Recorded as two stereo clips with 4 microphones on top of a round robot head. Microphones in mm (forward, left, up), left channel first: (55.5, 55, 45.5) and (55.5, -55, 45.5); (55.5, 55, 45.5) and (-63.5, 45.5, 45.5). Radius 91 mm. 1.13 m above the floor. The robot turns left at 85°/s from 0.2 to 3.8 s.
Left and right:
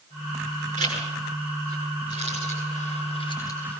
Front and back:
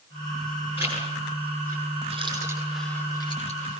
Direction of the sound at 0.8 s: 95° right.